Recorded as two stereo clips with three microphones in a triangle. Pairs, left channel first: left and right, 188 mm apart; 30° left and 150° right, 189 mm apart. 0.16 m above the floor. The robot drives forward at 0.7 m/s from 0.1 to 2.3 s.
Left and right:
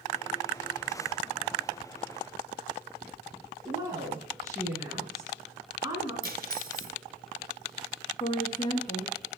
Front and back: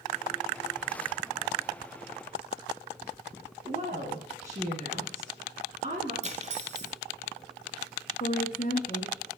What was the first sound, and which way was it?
A woman speaking, 155° right.